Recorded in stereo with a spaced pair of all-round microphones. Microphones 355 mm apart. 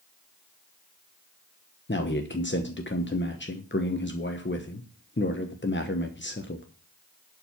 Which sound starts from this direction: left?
A man speaking, at 1.9 s.